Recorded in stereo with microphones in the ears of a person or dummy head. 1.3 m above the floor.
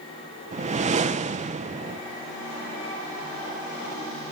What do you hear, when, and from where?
0.5 s a whoosh: 30° right (ahead or behind), 1.0 m